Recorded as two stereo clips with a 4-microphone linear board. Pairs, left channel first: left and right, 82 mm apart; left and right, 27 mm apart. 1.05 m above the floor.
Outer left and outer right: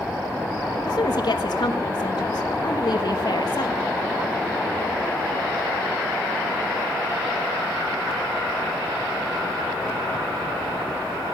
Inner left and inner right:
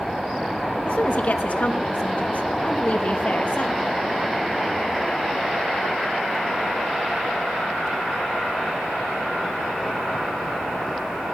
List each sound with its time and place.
0.9 s a woman speaking: 55° left (ahead or behind), 1.2 m